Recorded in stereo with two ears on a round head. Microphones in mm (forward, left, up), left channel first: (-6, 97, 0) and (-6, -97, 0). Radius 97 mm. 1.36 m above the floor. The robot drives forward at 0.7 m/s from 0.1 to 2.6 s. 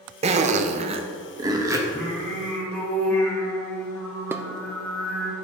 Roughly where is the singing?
Centre.